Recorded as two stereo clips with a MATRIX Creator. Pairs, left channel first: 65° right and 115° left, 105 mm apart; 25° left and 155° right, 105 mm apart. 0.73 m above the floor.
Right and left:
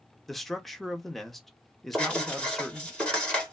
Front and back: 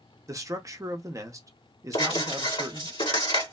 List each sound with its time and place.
0.3 s a man speaking: 155° right, 0.6 m
1.9 s writing: 10° left, 2 m